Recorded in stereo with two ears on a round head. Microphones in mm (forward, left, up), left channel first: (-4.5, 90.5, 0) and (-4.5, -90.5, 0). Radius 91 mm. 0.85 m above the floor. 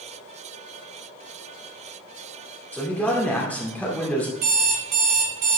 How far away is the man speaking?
About 2.5 m.